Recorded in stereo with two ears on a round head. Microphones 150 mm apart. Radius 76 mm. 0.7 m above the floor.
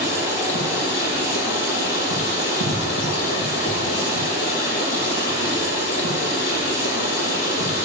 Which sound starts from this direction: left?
Running water, at 0.0 s.